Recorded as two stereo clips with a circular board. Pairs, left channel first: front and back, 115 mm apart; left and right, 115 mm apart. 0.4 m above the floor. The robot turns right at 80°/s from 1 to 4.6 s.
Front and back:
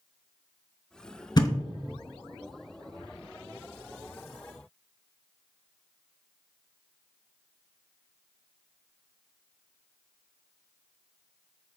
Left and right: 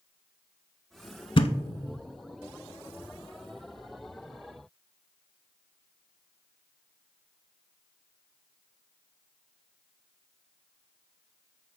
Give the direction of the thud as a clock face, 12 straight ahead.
10 o'clock.